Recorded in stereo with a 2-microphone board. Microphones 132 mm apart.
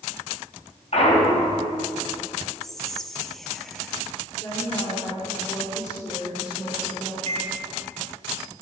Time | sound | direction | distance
0.9 | a clunk | 55° left (ahead or behind) | 3 m
2.6 | whispering | centre (ahead or behind) | 0.8 m
4.4 | a woman speaking | 35° left (ahead or behind) | 3.5 m
7.3 | a microwave | 60° right (ahead or behind) | 1.7 m